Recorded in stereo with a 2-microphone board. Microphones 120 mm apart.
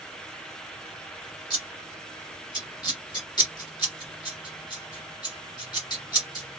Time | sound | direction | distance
1.5 | scissors | 35° left (ahead or behind) | 2.5 m